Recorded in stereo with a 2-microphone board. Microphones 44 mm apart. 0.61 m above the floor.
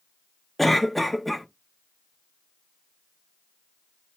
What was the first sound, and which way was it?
A cough, centre (ahead or behind).